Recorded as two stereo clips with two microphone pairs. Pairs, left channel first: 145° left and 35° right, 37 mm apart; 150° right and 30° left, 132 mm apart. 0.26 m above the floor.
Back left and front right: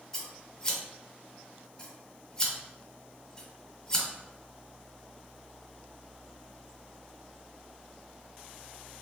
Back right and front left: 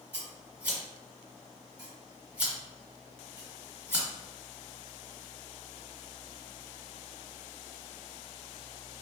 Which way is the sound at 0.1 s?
100° left.